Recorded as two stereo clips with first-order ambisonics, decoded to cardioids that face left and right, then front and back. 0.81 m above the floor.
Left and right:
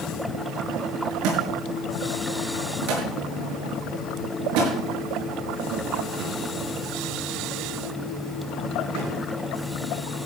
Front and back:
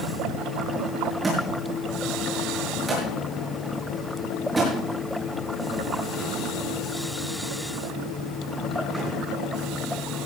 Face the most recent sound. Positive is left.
turn(degrees=-105)